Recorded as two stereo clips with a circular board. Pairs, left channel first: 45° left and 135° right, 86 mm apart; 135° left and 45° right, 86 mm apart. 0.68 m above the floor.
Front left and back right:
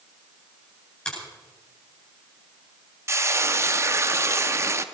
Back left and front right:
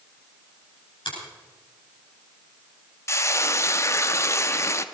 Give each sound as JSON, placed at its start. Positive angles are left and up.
{"t": 1.1, "sound": "a finger snap", "azimuth_deg": 125, "distance_m": 9.5}
{"t": 3.1, "sound": "frying", "azimuth_deg": 180, "distance_m": 0.6}